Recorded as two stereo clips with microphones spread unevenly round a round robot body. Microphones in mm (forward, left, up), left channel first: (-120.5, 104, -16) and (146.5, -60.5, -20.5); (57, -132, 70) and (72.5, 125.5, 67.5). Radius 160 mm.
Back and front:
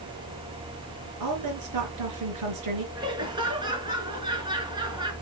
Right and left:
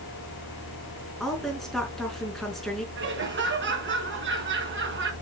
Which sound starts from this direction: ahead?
A woman speaking, at 1.2 s.